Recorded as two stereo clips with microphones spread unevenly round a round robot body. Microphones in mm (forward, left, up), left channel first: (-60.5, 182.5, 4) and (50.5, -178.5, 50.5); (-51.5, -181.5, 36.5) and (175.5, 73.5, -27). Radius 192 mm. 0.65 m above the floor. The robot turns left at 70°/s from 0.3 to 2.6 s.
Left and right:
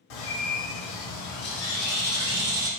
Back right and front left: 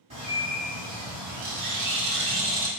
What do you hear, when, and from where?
0.1 s a bird: 125° left, 1.3 m; by 2.7 s 35° right, 1.3 m